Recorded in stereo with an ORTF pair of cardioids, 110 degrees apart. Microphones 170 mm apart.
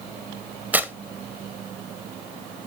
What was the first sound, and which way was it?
Tearing paper, 10° right.